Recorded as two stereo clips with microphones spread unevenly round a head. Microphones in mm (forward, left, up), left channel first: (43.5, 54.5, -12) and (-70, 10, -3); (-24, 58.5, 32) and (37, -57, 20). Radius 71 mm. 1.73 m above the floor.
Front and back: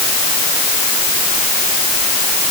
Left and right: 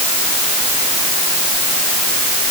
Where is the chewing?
I don't hear chewing.